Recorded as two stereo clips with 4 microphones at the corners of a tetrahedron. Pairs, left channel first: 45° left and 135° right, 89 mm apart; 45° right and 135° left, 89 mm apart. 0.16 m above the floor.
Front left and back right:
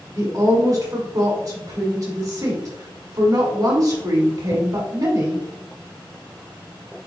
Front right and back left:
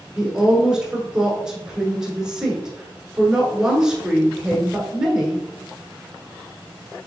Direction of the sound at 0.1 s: 150° right.